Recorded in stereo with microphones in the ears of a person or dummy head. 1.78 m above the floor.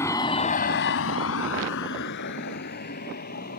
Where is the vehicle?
15° left (ahead or behind); by 3.6 s 50° left (ahead or behind).